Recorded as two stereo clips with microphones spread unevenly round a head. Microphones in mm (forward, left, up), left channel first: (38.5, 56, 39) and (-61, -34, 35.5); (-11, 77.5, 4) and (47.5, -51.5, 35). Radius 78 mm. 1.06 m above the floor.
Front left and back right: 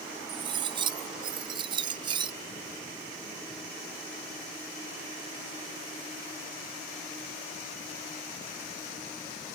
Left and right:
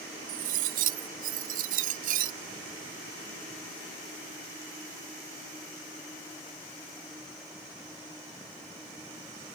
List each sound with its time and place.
0.3 s cutlery clinking: 80° right